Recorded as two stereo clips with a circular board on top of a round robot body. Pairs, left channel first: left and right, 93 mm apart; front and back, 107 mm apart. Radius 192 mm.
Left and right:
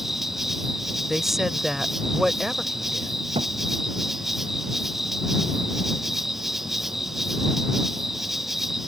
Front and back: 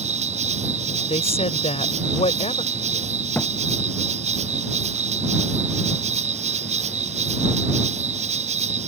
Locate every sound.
0.0 s an insect: 175° right
1.1 s a woman speaking: 5° right
3.4 s a thud: 75° right